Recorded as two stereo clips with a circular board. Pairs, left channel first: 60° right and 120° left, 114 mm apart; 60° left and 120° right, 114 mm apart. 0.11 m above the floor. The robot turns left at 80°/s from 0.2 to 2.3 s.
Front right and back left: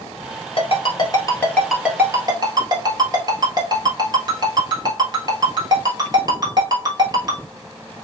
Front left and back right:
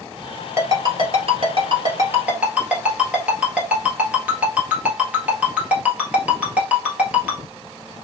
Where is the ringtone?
55° right, 1.4 m; by 7.4 s 165° left, 1.4 m.